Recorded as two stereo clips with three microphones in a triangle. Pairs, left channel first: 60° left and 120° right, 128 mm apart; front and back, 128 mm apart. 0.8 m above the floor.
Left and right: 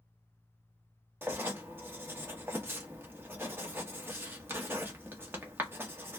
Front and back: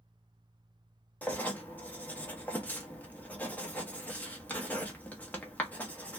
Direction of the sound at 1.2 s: 65° right.